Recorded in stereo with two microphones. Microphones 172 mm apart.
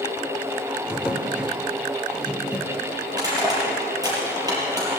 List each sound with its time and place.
0.9 s a drawer: 5° right (ahead or behind), 1.5 m
3.1 s crushing: 20° right (ahead or behind), 5.5 m